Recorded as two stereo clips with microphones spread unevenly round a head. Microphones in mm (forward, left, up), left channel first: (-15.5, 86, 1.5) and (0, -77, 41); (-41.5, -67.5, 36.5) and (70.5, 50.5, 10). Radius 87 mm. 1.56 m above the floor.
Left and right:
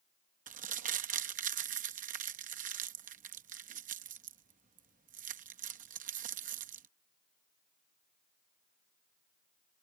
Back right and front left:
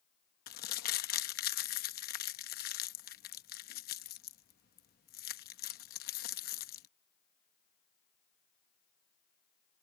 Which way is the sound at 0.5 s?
115° right.